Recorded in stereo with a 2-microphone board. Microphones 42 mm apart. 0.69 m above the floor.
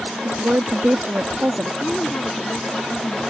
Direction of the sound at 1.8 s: 30° left (ahead or behind).